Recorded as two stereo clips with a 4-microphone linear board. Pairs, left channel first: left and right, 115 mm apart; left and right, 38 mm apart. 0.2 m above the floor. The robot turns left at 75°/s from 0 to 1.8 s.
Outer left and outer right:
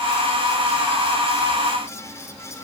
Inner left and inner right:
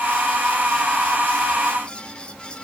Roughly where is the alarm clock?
I don't hear an alarm clock.